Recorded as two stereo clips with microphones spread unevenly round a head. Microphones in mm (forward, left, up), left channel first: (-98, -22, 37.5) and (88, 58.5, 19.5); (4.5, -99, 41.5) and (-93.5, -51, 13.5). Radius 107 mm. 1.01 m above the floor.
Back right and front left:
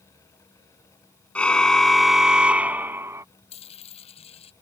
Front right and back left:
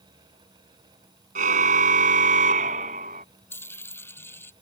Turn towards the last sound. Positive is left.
turn(degrees=-95)